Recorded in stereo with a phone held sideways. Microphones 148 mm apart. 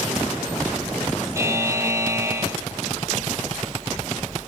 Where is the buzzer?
20° right (ahead or behind), 1.3 m.